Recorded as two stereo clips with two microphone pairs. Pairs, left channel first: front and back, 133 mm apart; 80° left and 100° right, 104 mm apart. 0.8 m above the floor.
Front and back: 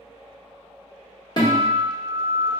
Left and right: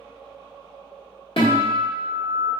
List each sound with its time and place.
1.4 s a guitar: 60° left, 1.4 m